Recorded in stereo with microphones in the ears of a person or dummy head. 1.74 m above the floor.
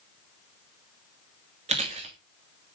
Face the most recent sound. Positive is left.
turn(degrees=-35)  # may be behind; listen again after turning